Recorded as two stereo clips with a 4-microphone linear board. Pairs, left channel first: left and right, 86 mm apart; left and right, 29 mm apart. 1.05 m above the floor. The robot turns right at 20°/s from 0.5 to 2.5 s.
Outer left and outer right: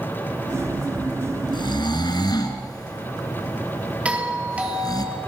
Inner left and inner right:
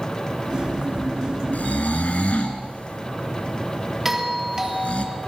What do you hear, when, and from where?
1.5 s snoring: 65° left (ahead or behind), 2.5 m; by 5.0 s 50° left (ahead or behind), 2.5 m
4.0 s a doorbell: 15° right (ahead or behind), 3.5 m